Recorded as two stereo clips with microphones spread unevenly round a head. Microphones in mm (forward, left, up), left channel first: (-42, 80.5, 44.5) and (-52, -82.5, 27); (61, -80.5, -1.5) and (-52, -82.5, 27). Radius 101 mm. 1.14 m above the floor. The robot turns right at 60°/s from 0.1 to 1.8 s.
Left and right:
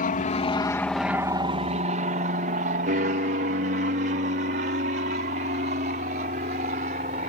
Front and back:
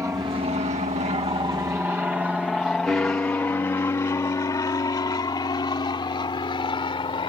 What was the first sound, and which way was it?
An aircraft, 105° left.